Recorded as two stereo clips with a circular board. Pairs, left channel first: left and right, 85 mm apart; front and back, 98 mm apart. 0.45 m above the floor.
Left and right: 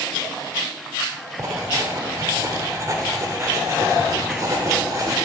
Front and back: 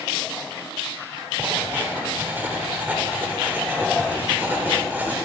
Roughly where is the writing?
Behind right.